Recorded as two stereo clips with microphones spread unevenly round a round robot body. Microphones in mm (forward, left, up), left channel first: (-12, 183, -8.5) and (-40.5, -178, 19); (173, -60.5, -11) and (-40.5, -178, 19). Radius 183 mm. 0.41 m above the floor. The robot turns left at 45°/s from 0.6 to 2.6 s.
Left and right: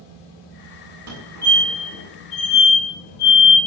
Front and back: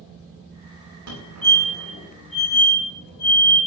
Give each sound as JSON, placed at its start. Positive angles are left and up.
{"t": 1.1, "sound": "a fire alarm", "azimuth_deg": -145, "distance_m": 8.0}